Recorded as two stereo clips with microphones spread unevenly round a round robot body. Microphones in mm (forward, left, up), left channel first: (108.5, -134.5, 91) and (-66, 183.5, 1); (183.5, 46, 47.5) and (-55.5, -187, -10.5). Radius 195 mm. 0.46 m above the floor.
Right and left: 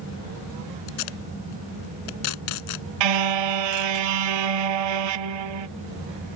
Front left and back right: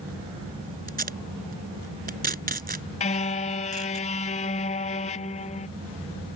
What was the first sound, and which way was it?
Tape being pulled, 70° right.